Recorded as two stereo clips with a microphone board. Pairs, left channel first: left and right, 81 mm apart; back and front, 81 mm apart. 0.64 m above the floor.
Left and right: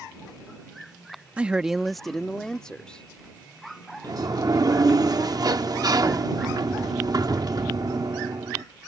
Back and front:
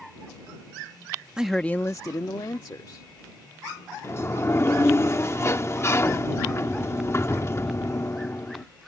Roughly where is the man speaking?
Ahead right.